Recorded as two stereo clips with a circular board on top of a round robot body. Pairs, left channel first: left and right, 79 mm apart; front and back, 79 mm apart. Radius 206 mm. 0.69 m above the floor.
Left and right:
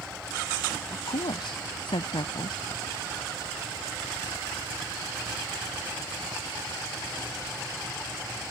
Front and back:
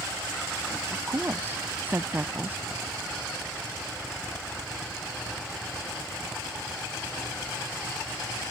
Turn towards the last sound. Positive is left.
turn(degrees=115)